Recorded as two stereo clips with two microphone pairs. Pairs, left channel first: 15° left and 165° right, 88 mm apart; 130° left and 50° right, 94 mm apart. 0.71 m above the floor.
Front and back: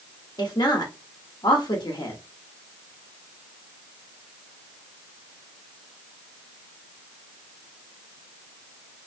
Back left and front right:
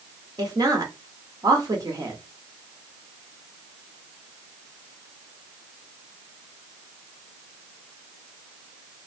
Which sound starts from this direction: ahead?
A woman speaking, at 0.4 s.